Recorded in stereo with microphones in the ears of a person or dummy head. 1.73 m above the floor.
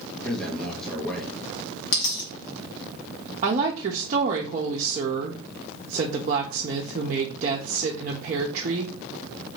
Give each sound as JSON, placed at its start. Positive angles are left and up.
{"t": 0.2, "sound": "a man speaking", "side_deg": 0, "distance_m": 1.1}
{"t": 1.9, "sound": "a dropped coin", "side_deg": 50, "distance_m": 2.5}
{"t": 3.4, "sound": "a woman speaking", "side_deg": -45, "distance_m": 0.8}